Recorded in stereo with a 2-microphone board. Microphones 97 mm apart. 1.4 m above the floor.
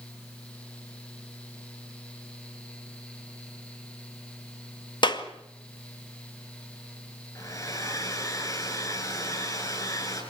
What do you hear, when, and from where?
5.0 s a clap: 55° left (ahead or behind), 2 m
7.3 s a hair dryer: 35° left (ahead or behind), 7.5 m